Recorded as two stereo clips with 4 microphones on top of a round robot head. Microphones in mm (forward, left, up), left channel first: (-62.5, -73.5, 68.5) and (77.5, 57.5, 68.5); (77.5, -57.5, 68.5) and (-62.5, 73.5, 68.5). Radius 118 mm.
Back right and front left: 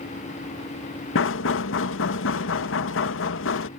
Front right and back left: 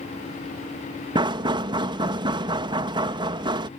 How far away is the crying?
I don't hear crying.